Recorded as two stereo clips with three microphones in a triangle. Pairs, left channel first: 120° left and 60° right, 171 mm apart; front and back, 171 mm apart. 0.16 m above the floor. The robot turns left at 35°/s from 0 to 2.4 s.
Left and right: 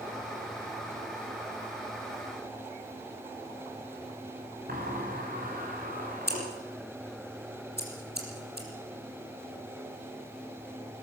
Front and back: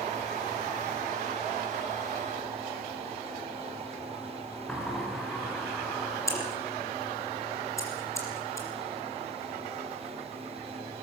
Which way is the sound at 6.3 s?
75° right.